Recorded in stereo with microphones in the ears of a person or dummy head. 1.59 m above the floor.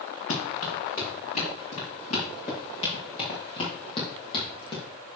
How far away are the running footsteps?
About 6.5 m.